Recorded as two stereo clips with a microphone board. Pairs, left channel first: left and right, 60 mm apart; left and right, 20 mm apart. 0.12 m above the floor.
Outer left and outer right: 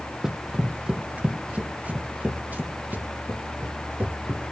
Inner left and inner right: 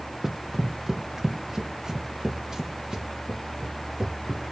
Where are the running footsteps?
10° right (ahead or behind), 0.6 m; by 4.5 s 30° right (ahead or behind), 3 m.